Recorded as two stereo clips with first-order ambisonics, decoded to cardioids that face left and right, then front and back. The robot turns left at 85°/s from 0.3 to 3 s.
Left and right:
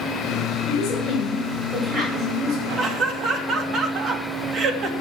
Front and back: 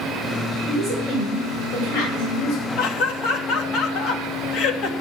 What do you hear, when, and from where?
0.7 s a woman speaking: 135° left, 7 m; by 2.7 s 35° right, 7 m
2.8 s laughter: 20° right, 2.5 m; by 4.9 s 40° right, 2.5 m